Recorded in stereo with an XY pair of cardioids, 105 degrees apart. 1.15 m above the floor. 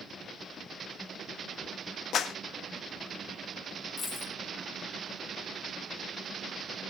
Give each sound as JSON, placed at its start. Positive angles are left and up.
{"t": 2.1, "sound": "a clap", "azimuth_deg": 65, "distance_m": 1.2}
{"t": 4.0, "sound": "a dropped coin", "azimuth_deg": 35, "distance_m": 3.5}